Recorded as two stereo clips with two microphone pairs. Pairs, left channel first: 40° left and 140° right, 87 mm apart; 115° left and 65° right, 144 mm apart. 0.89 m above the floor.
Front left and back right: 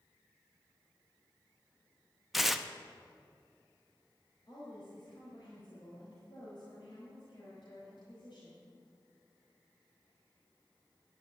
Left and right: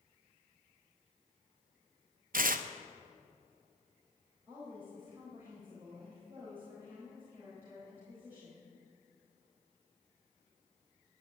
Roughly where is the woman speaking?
Ahead.